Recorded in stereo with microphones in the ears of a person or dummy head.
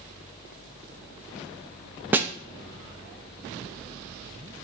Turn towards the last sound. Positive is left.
turn(degrees=-10)  # may be behind; listen again after turning